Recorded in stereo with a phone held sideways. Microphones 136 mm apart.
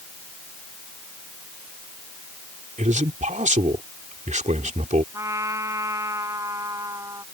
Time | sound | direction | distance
2.8 | a man speaking | 60° right (ahead or behind) | ?
5.1 | a trumpet | 25° right (ahead or behind) | ?